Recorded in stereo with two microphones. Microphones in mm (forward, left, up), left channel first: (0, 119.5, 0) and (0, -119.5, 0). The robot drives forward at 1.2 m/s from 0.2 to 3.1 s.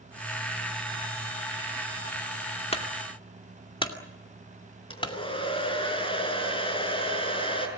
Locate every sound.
2.7 s a clunk: 25° left (ahead or behind), 2.5 m; by 5.1 s 20° left (ahead or behind), 2.5 m
4.9 s a hair dryer: 20° left (ahead or behind), 6 m